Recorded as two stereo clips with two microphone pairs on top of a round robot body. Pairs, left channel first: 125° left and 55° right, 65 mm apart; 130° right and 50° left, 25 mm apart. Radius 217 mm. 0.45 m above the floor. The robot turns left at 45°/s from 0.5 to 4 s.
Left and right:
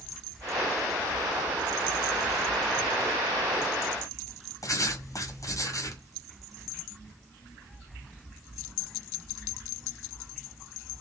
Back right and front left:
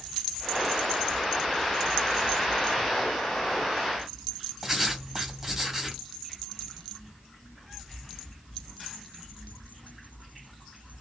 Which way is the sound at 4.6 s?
130° left.